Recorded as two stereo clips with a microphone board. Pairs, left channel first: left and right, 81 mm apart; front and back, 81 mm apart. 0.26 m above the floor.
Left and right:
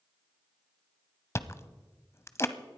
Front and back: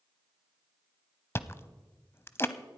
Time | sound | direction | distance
1.4 | chewing | 45° left | 0.7 m